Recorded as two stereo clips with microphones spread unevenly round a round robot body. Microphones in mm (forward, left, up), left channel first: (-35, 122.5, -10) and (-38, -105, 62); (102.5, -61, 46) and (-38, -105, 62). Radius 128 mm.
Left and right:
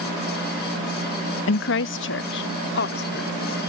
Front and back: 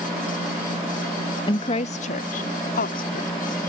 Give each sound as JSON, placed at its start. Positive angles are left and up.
{"t": 1.5, "sound": "a woman speaking", "azimuth_deg": 80}